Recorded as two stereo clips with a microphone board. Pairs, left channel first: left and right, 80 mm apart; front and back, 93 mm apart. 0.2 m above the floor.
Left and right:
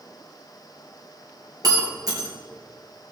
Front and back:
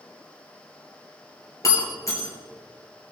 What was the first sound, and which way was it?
Breaking glass, 55° right.